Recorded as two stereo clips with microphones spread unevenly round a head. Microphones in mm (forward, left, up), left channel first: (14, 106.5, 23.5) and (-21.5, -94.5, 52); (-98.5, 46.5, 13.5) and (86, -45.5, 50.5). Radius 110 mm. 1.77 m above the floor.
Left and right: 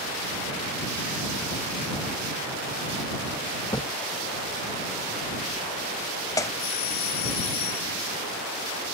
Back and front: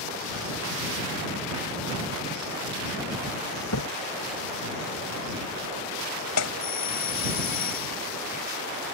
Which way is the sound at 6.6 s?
105° left.